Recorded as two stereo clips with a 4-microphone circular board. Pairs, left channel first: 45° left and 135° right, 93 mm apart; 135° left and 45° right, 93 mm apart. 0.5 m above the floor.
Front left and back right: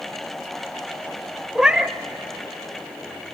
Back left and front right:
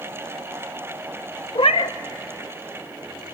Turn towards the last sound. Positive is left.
turn(degrees=145)